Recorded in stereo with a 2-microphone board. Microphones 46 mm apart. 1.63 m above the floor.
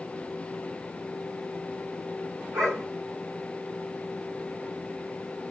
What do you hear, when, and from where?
2.5 s a dog barking: 75° right (ahead or behind), 5.5 m